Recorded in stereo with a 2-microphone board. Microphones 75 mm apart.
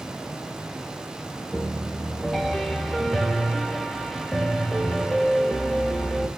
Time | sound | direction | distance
1.5 | a piano | centre (ahead or behind) | 0.5 m